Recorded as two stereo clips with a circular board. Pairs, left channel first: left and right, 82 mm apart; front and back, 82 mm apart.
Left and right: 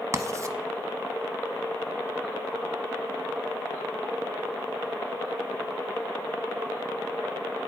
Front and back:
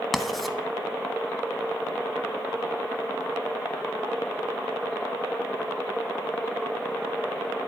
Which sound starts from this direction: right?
Writing, at 0.1 s.